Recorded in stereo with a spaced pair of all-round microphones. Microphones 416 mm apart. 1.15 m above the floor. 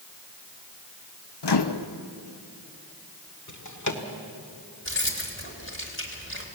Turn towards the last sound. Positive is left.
turn(degrees=30)  # may be behind; listen again after turning